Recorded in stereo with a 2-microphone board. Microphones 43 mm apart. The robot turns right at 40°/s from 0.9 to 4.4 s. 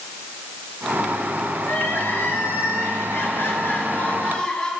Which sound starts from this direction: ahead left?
Crying, at 1.6 s.